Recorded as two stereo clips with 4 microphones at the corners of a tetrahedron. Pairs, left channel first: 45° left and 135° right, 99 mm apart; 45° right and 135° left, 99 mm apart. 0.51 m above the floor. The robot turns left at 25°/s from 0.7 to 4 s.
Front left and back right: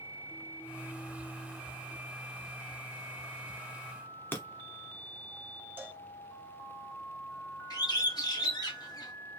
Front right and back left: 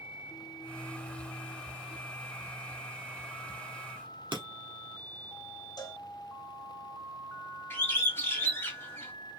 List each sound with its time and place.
4.3 s breaking glass: 110° left, 1.0 m
5.8 s a cowbell: 70° right, 0.7 m
7.7 s a bird: 15° left, 1.2 m